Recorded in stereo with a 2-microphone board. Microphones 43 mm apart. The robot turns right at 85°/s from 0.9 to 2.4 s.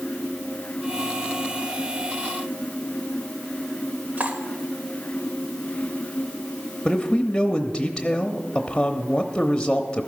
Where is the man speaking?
15° left (ahead or behind), 0.8 m.